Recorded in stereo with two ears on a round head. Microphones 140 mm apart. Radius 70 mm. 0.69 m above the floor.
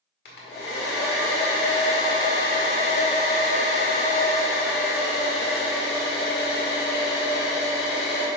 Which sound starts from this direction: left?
A hair dryer, at 0.2 s.